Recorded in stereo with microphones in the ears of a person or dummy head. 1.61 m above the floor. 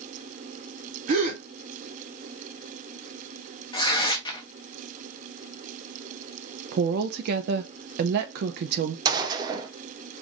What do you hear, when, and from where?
1.1 s a gasp: 45° right (ahead or behind), 1.1 m
3.7 s tearing paper: 25° left (ahead or behind), 0.9 m
6.7 s a woman speaking: 70° right (ahead or behind), 0.5 m
9.1 s a gunshot: 25° right (ahead or behind), 0.8 m